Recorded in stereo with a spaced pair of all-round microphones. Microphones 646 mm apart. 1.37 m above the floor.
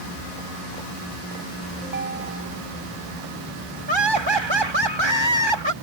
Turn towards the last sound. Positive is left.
turn(degrees=-40)  # may be behind; listen again after turning